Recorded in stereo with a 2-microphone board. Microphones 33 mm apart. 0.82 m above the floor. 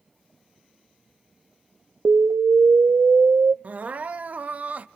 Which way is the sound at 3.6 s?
50° right (ahead or behind).